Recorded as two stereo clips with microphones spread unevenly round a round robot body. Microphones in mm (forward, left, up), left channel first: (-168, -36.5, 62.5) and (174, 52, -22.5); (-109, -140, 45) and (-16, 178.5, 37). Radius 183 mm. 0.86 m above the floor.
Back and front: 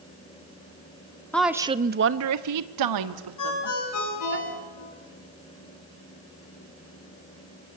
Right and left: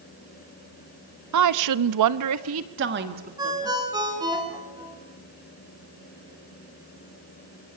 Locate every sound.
1.3 s a woman speaking: 100° left, 1.2 m; by 4.4 s 5° right, 3 m
3.4 s a ringtone: 150° left, 6.5 m